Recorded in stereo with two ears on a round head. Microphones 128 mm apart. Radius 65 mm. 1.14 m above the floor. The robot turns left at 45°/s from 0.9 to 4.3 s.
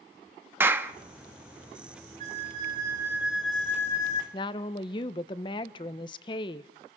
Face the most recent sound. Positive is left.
turn(degrees=35)  # may be behind; listen again after turning